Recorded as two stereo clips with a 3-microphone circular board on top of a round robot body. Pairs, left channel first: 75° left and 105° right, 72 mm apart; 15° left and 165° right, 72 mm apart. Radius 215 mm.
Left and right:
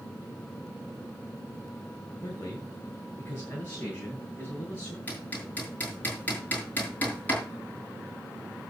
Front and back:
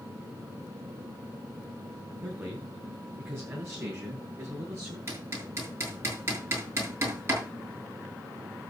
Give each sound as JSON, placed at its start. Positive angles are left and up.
{"t": 2.2, "sound": "a man speaking", "azimuth_deg": 130, "distance_m": 4.0}
{"t": 5.1, "sound": "hammering", "azimuth_deg": 140, "distance_m": 7.0}